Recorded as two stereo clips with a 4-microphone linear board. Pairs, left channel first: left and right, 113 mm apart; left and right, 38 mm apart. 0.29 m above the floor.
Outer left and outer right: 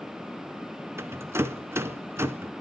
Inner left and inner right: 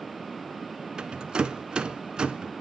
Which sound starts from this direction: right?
A rattle, at 1.0 s.